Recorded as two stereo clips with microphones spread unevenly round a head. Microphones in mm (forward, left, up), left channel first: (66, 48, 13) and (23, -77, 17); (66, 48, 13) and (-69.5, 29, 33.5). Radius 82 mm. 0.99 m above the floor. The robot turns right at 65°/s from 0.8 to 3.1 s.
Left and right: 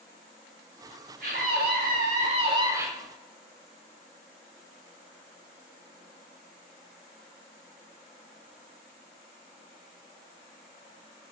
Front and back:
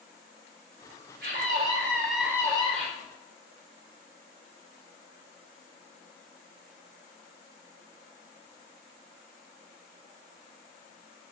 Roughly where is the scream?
Behind right.